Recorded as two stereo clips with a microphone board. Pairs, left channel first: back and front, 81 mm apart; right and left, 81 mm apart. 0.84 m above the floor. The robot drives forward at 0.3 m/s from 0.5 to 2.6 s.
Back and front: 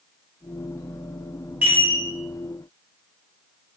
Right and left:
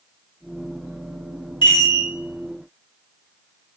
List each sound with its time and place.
1.6 s a chime: 70° right, 1.0 m; by 2.0 s 75° right, 1.0 m